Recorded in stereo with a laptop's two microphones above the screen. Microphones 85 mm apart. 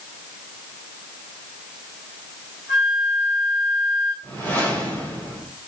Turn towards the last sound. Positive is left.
turn(degrees=15)  # may be behind; listen again after turning